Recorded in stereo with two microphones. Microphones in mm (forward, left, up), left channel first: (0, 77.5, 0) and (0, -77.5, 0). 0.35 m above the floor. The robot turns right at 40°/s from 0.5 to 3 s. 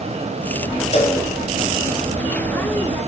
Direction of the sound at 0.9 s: 45° left (ahead or behind).